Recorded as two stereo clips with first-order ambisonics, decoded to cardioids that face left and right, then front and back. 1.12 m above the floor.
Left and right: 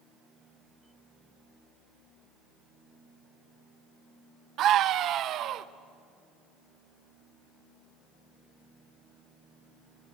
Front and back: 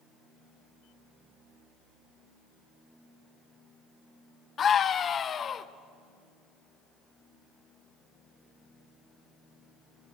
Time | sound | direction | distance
4.6 | a scream | 55° right | 0.7 m